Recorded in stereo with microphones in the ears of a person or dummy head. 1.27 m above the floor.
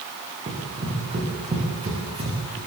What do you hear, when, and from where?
0.5 s running footsteps: 25° right (ahead or behind), 9 m